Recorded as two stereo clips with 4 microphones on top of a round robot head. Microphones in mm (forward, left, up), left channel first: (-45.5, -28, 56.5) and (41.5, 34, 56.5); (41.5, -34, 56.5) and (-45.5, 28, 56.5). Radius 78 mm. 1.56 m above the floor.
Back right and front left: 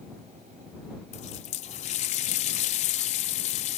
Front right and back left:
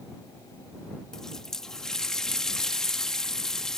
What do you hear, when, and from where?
1.1 s a running tap: 120° right